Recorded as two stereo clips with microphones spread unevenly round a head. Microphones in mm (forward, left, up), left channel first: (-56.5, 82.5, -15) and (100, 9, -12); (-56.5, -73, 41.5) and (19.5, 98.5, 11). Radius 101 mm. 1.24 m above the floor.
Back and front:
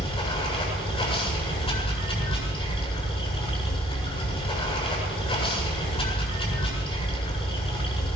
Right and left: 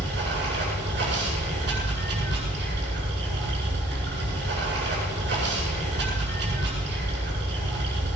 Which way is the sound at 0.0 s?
95° left.